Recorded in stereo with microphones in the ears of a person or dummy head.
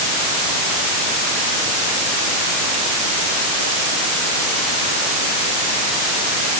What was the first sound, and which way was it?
Only background noise.